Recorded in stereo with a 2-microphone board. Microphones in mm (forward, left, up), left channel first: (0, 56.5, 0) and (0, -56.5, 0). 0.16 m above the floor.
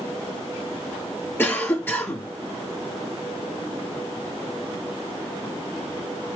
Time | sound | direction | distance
1.4 | a cough | 20° left (ahead or behind) | 1.5 m